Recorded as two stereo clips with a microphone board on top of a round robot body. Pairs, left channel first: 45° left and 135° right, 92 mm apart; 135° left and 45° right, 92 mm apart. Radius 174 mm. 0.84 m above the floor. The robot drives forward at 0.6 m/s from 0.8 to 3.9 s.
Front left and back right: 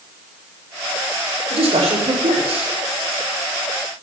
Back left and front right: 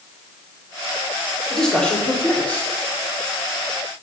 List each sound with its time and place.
1.5 s a man speaking: 145° right, 3 m; by 2.7 s 150° right, 3.5 m